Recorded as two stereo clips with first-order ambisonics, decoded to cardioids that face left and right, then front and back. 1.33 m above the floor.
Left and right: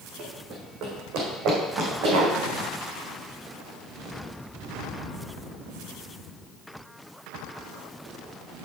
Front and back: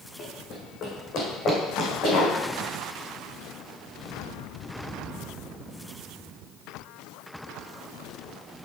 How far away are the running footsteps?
About 4.5 m.